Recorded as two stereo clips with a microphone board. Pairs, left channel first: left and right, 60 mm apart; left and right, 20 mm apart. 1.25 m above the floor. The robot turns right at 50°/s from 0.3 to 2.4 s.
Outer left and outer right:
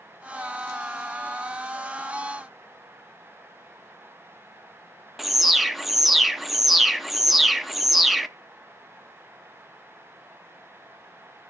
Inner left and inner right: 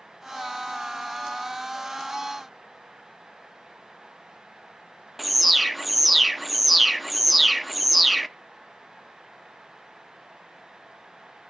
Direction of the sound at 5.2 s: 5° right (ahead or behind).